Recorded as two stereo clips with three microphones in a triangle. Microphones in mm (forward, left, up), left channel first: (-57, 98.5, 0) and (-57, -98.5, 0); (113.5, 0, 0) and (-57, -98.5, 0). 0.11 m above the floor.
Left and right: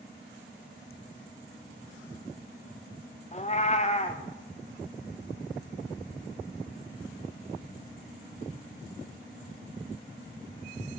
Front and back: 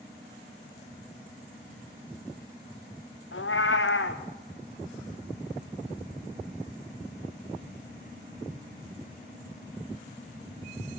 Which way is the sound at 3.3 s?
35° left.